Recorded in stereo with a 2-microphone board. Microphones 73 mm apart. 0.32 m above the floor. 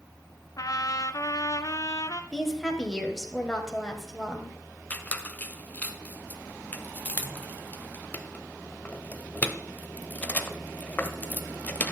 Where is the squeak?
20° left (ahead or behind), 0.7 m.